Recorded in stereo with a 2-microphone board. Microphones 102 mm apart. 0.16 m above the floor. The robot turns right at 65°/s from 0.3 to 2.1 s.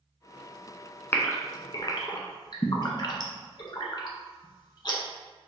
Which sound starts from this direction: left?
A gasp, at 1.1 s.